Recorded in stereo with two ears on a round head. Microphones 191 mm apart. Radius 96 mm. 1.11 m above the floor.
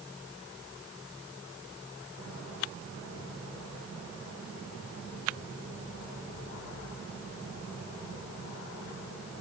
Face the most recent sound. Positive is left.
No sound to turn to.